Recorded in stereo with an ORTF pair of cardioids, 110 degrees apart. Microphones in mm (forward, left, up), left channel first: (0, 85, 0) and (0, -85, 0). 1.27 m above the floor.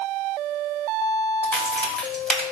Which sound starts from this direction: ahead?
A crack, at 1.4 s.